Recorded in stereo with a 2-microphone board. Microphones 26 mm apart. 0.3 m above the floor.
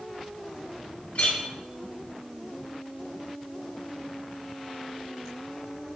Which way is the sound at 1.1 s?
60° left (ahead or behind).